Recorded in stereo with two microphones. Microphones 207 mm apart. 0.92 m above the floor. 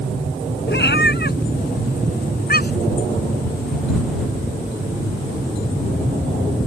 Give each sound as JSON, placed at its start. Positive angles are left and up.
{"t": 0.7, "sound": "a cat meowing", "side_deg": 60}